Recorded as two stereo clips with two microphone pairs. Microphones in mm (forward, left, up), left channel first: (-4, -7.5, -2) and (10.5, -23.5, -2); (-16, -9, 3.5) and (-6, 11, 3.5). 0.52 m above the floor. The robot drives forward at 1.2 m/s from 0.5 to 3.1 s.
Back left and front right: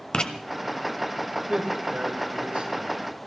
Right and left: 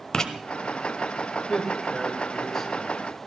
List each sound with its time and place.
0.1 s writing: straight behind, 1.4 m
1.5 s a man speaking: 30° right, 4 m; by 2.9 s 45° right, 3 m